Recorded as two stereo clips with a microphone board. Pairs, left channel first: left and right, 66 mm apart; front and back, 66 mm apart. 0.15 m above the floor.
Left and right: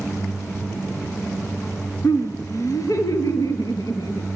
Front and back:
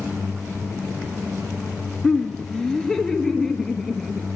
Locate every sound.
2.0 s laughter: 70° left, 2 m; by 4.3 s 85° left, 4 m